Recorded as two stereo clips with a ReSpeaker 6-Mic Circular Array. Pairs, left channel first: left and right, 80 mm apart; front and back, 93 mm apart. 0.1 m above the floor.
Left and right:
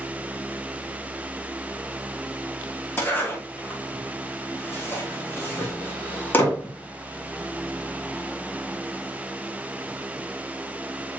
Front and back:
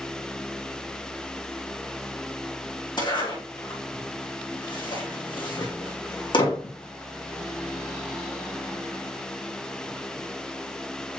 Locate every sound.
3.0 s a zipper: 30° left, 5 m